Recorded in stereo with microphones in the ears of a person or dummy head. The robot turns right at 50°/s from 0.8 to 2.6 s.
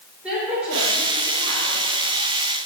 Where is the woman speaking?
5° right, 4.5 m; by 1.8 s 45° left, 4.5 m.